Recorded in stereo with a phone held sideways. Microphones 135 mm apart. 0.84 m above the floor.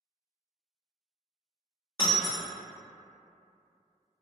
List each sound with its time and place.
2.0 s breaking glass: 30° left (ahead or behind), 0.9 m